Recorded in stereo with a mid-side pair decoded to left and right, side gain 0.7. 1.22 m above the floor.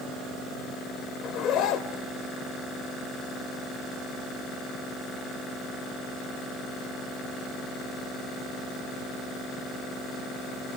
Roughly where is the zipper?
Ahead left.